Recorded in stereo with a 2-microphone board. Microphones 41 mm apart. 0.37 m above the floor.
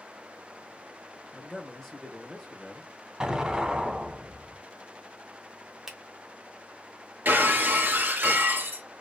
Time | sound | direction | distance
1.3 | a man speaking | 5° left (ahead or behind) | 1.0 m
3.2 | an explosion | 15° right (ahead or behind) | 0.5 m
5.9 | a finger snap | 15° right (ahead or behind) | 0.7 m
7.2 | breaking glass | 50° right (ahead or behind) | 0.7 m